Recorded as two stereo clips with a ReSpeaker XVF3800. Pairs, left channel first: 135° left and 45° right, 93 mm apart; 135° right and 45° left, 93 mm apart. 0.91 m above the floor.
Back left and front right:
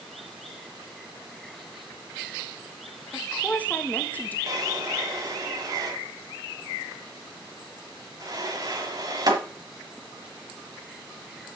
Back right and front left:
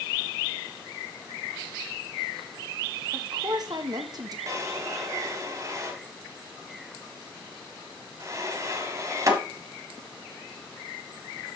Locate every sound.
3.1 s a woman speaking: 65° left, 1.1 m
4.5 s a drawer: 5° right, 1.4 m